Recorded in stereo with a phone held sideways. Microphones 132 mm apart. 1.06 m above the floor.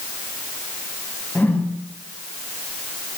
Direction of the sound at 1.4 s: 15° left (ahead or behind).